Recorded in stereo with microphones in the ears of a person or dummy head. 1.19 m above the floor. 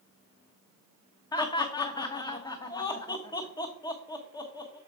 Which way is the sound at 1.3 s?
20° left (ahead or behind).